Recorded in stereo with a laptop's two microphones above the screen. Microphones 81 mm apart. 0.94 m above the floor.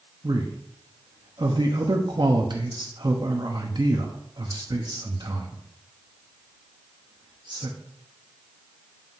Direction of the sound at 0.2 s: 70° right (ahead or behind).